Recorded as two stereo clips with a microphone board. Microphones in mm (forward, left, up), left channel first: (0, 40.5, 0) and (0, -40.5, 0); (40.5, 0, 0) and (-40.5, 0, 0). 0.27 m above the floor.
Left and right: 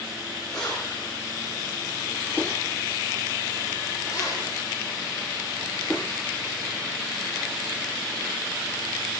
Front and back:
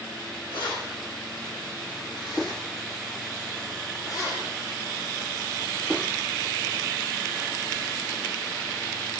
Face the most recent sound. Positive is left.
turn(degrees=65)